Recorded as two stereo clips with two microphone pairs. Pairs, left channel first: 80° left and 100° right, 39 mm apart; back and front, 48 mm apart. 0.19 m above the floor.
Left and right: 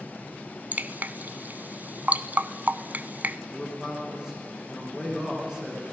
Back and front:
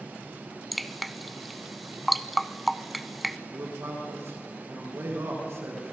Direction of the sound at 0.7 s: 95° right.